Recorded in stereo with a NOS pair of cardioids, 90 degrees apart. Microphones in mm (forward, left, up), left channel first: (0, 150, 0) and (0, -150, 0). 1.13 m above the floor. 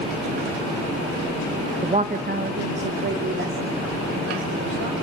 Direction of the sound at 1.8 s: 15° right.